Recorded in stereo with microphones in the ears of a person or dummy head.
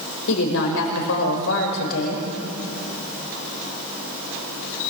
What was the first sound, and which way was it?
A woman speaking, 80° left.